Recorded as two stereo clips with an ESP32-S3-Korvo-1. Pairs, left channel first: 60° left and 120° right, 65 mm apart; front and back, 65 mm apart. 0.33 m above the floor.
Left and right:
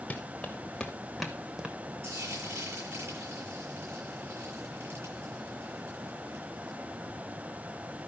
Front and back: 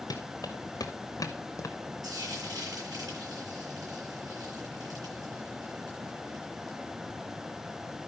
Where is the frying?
165° right, 8.5 m.